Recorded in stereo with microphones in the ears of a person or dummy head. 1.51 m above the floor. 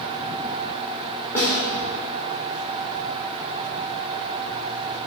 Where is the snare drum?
15° left (ahead or behind), 1.0 m.